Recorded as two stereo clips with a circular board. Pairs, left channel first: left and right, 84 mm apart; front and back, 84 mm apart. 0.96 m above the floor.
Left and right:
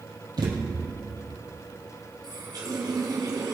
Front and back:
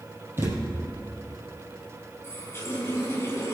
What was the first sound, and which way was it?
A thud, 120° right.